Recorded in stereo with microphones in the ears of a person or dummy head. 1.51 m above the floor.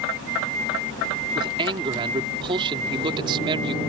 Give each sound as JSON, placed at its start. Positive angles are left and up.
{"t": 1.4, "sound": "a man speaking", "side_deg": -25}